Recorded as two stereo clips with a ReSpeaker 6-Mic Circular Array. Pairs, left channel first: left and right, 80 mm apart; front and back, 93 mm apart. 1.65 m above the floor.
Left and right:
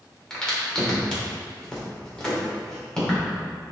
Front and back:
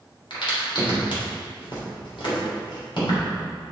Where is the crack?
10° left, 3 m.